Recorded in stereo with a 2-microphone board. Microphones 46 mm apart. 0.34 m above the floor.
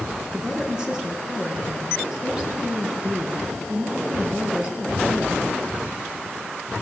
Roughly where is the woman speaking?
Centre.